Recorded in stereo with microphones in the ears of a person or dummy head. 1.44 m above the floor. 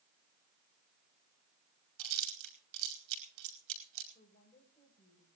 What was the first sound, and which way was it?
Chewing, 80° right.